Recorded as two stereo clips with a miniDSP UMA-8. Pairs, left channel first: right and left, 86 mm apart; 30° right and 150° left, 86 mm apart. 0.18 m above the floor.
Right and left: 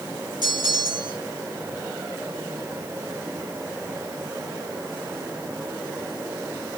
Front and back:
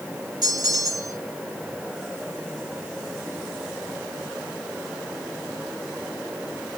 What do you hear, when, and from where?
0.4 s a bell: 115° left, 2.5 m